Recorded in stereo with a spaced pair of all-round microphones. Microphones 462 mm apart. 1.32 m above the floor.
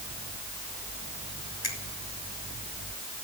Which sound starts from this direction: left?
A finger snap, at 1.6 s.